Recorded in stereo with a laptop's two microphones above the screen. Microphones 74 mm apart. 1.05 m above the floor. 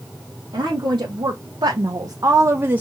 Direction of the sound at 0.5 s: 80° right.